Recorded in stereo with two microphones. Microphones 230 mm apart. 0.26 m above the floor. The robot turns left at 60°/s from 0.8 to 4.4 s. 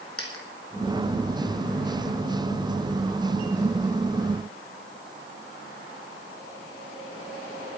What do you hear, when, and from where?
0.2 s a dropped coin: 70° left (ahead or behind), 2.5 m